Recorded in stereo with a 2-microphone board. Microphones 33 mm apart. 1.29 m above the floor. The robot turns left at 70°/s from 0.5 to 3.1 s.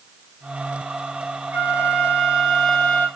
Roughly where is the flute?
Right.